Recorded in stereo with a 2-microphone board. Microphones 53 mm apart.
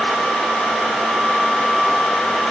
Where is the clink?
I don't hear a clink.